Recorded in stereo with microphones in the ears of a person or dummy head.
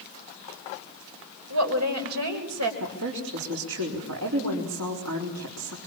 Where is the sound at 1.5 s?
80° right, 4.5 m.